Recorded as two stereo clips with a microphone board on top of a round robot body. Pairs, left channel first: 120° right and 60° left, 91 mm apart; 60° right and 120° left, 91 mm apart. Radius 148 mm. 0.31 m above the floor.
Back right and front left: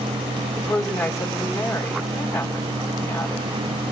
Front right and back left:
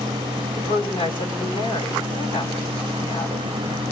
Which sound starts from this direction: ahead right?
A woman speaking, at 0.6 s.